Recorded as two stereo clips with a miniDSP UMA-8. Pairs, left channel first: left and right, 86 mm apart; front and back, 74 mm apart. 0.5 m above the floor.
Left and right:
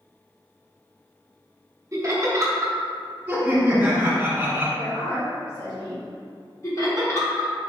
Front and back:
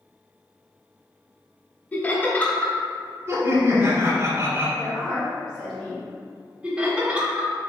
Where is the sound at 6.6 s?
110° left, 1.3 m.